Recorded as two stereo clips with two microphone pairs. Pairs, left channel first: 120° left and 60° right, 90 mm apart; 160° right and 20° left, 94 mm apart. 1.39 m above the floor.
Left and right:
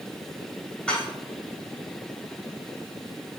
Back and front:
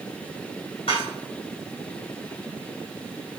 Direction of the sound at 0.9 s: 160° right.